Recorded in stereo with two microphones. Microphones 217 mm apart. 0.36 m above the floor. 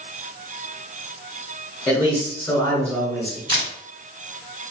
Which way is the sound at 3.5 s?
20° right (ahead or behind).